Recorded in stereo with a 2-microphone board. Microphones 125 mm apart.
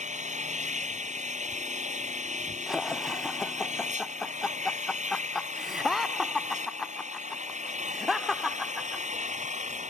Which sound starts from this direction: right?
An engine running, at 0.0 s.